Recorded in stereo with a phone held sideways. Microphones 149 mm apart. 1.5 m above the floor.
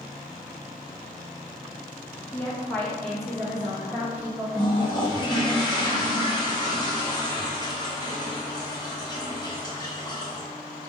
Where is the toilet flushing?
25° left (ahead or behind), 1.3 m.